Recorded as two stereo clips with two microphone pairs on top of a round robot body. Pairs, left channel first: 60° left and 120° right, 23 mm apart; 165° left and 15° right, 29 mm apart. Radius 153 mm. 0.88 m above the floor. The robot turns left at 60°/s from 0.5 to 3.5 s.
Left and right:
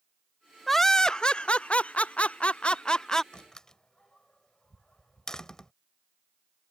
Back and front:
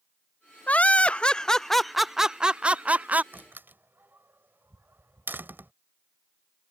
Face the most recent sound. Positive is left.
turn(degrees=-5)